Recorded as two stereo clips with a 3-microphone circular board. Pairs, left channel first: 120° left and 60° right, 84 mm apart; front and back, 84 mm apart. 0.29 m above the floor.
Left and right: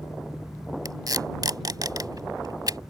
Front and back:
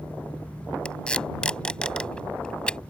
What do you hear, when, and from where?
0.8 s tape being pulled: 75° right